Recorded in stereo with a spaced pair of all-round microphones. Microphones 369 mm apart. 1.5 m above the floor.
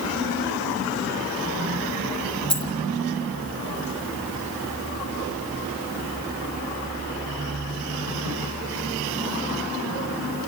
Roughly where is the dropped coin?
Centre.